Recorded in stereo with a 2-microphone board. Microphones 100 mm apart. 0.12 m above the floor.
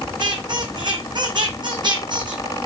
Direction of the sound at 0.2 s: 50° right (ahead or behind).